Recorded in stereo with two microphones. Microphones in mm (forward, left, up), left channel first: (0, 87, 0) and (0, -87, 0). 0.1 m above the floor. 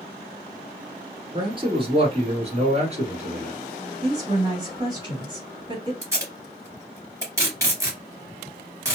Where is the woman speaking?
30° right (ahead or behind), 2.0 m.